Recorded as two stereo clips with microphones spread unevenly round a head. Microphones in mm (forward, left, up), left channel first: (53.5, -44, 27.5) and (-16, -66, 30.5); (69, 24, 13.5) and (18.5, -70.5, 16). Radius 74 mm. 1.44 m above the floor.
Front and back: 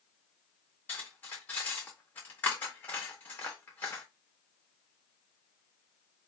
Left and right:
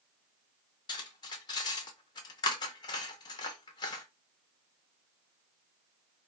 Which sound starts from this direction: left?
Cutlery clinking, at 0.9 s.